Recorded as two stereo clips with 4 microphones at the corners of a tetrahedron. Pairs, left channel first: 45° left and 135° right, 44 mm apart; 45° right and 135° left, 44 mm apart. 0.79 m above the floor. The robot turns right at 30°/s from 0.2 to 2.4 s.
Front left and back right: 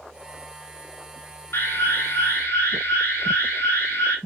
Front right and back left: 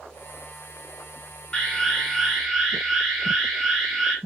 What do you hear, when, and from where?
1.5 s an alarm: 25° left, 7 m; by 4.2 s 50° left, 7 m